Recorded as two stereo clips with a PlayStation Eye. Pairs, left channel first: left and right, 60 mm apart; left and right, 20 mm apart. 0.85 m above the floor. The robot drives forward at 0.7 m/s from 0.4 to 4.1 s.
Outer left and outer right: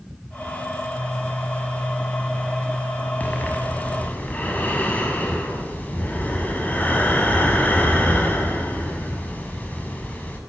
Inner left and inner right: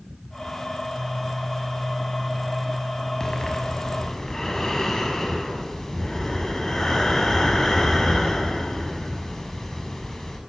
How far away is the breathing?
About 7 m.